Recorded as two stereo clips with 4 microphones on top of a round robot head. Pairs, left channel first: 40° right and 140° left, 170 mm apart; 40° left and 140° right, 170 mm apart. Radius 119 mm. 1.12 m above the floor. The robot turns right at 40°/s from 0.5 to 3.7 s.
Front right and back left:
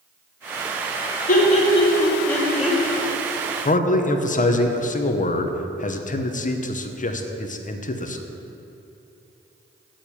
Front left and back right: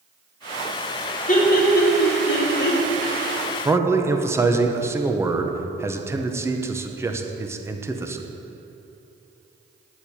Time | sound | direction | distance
1.3 | laughter | straight ahead | 2.5 m
3.6 | a man speaking | 70° right | 1.0 m